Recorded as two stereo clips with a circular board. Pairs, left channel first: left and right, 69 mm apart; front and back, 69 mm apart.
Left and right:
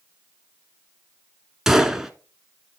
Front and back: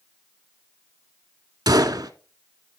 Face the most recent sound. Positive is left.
turn(degrees=-175)